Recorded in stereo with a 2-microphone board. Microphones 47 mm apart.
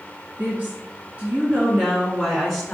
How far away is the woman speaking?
About 1.5 m.